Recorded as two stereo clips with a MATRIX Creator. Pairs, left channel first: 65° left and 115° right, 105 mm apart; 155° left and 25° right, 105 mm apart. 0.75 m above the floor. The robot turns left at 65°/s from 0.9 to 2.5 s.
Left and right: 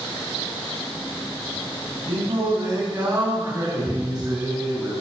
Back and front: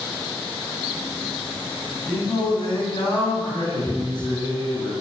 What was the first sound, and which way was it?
Singing, 135° right.